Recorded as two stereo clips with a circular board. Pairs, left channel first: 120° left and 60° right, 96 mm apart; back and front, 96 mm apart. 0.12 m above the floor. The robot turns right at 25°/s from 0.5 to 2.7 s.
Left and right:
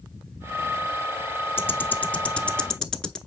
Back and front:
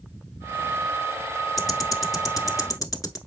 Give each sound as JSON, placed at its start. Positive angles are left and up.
{"t": 1.6, "sound": "ticking", "azimuth_deg": 165, "distance_m": 0.9}